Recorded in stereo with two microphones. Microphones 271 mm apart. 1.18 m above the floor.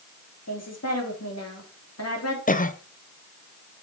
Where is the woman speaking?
65° left (ahead or behind), 2.5 m.